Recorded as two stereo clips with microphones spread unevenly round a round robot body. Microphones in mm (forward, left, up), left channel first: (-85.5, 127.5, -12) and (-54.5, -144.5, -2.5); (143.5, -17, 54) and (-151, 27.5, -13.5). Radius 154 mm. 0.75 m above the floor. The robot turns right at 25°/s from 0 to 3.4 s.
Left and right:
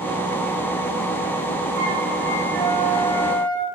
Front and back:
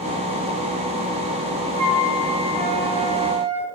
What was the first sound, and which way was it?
A flute, 90° right.